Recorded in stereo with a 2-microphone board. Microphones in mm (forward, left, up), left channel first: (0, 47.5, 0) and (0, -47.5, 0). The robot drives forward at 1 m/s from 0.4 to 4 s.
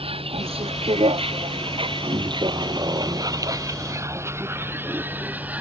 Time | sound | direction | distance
0.0 | a vehicle | 85° right | ?